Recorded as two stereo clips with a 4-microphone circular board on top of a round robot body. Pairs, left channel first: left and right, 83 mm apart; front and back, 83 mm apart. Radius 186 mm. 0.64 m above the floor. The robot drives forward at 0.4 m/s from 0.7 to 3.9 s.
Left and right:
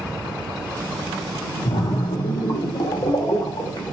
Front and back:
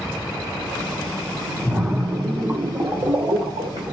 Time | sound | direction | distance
1.6 | a splash | 100° left | 0.9 m